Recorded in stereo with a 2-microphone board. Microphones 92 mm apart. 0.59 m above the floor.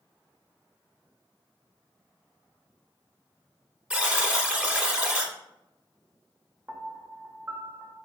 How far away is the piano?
About 0.5 m.